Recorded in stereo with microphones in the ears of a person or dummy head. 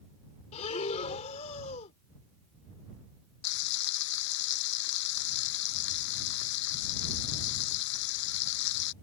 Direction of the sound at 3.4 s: 70° left (ahead or behind).